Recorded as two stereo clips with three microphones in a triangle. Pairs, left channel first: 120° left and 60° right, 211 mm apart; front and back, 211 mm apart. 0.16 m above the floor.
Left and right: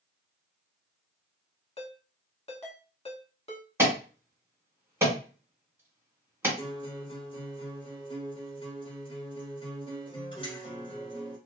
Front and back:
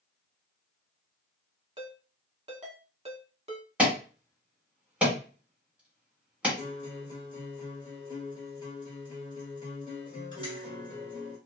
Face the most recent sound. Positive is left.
turn(degrees=60)